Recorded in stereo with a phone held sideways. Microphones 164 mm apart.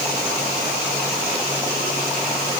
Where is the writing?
No writing in this recording.